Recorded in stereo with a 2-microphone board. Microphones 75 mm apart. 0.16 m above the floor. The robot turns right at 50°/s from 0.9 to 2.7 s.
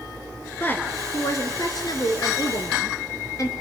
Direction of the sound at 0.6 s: 30° left.